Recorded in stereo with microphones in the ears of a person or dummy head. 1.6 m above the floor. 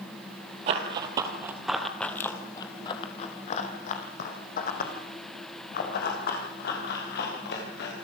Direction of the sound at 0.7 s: 40° right (ahead or behind).